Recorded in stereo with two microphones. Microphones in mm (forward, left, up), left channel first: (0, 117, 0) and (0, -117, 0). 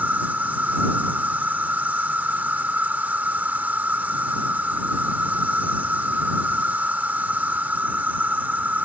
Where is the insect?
10° right (ahead or behind).